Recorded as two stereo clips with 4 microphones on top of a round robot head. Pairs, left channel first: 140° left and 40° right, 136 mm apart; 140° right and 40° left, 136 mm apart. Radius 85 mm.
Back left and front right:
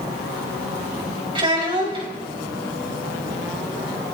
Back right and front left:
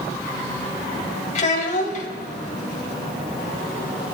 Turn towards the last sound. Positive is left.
turn(degrees=-100)